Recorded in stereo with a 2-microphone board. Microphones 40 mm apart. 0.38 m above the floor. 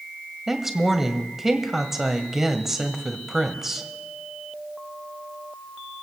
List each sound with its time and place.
0.5 s a woman speaking: 10° right (ahead or behind), 1.5 m